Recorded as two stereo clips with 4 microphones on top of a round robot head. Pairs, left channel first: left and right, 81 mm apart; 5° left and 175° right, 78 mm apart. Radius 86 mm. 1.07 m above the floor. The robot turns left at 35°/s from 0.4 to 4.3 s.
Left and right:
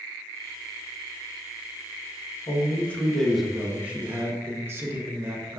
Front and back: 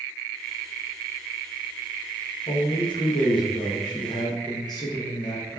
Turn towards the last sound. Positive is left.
turn(degrees=-30)